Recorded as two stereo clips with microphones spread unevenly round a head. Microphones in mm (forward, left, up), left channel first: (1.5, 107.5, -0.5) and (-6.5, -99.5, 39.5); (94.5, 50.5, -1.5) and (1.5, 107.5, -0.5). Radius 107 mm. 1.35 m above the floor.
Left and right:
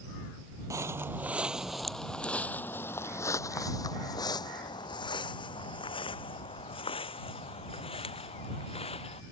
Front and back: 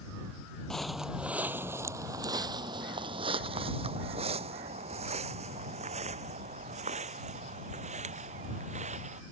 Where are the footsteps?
115° right; by 9.2 s 155° left.